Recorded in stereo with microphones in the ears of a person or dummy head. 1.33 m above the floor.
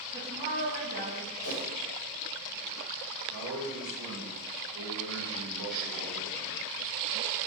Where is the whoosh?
65° left (ahead or behind), 1.2 m.